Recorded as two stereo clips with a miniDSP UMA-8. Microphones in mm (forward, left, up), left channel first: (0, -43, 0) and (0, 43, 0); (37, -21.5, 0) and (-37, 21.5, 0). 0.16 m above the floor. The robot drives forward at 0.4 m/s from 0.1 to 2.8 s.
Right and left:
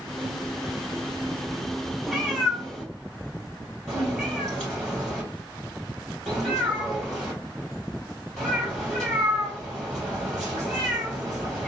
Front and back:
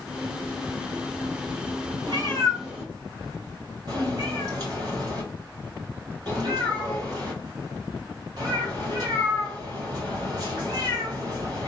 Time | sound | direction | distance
2.1 | a cat meowing | 175° right | 1.8 m